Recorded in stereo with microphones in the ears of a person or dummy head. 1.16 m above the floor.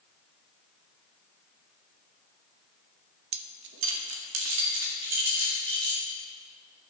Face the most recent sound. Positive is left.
turn(degrees=-70)  # may be behind; listen again after turning